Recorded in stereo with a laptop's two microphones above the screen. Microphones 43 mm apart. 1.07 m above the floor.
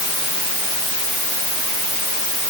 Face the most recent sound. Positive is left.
No sound to turn to.